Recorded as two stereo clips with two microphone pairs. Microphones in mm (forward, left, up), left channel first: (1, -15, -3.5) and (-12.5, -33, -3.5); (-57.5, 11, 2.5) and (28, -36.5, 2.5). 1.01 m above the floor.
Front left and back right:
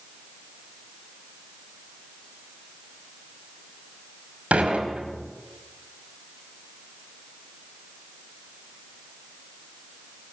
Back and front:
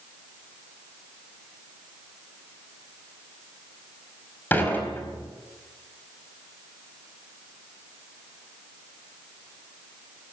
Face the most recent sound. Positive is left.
turn(degrees=-135)